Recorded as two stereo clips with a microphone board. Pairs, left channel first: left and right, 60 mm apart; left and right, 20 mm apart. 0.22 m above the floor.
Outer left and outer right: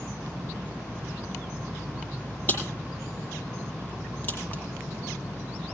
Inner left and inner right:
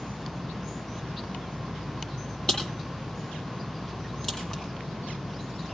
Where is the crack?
35° left (ahead or behind), 8.5 m.